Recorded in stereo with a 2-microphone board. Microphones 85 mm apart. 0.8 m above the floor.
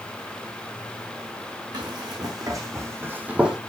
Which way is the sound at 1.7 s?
55° right (ahead or behind).